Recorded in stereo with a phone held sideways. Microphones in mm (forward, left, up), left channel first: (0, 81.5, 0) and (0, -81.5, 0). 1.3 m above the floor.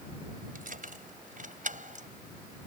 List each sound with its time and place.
0.6 s keys jangling: 65° right (ahead or behind); by 2.1 s 55° right (ahead or behind)